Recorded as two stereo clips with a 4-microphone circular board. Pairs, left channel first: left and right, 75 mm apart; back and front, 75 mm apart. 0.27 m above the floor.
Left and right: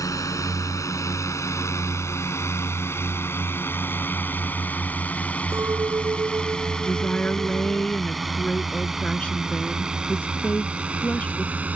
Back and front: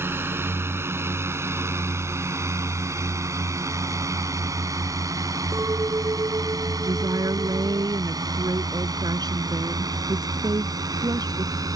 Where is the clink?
45° right.